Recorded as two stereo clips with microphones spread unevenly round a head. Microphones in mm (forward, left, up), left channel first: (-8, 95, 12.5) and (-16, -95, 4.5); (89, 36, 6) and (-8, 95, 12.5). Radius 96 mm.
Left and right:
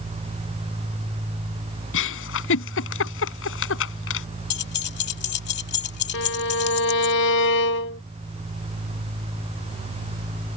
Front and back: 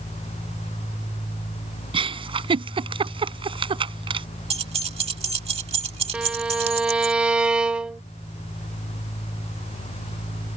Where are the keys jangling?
120° left.